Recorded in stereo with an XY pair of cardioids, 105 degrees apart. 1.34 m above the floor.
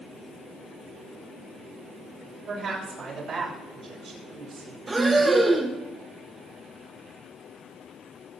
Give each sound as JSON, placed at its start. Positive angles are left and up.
{"t": 2.5, "sound": "a woman speaking", "azimuth_deg": -65, "distance_m": 6.0}
{"t": 4.9, "sound": "breathing", "azimuth_deg": -30, "distance_m": 1.5}